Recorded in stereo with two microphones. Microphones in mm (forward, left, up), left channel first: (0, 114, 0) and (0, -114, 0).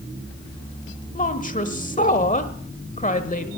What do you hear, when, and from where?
1.1 s a woman speaking: 35° left (ahead or behind), 1.2 m